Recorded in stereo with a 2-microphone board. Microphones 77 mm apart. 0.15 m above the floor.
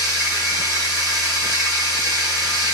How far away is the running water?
About 2.5 m.